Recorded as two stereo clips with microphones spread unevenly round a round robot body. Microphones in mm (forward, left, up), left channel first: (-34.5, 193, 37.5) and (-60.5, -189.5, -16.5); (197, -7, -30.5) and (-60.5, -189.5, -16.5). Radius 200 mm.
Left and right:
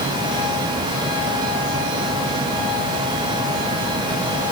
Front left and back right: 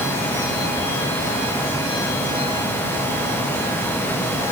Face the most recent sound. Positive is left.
No sound to turn to.